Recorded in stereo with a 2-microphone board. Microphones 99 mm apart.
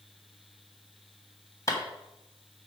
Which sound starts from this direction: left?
A clap, at 1.7 s.